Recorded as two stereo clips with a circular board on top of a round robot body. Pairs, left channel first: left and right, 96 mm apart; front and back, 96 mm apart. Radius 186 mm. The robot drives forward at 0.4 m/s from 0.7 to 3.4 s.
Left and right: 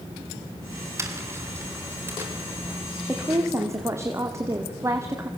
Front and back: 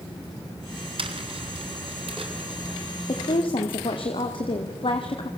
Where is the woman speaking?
25° right, 2 m; by 5.3 s 30° right, 2.0 m.